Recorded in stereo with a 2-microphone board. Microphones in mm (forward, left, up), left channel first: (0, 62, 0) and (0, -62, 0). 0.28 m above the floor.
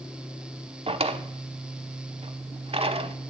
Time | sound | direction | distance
0.9 | a drawer | 50° right (ahead or behind) | 0.6 m